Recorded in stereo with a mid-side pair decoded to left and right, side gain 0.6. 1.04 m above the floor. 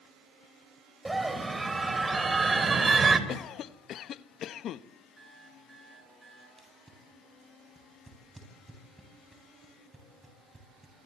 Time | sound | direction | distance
1.1 | a scream | 10° right | 5.5 m
3.3 | a cough | 55° left | 1.1 m
5.2 | an alarm clock | 20° right | 8 m
6.6 | tape being pulled | 10° right | 9.5 m